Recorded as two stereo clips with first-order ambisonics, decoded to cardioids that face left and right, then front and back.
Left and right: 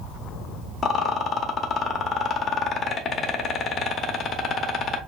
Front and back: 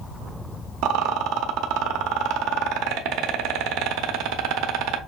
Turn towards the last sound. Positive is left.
turn(degrees=155)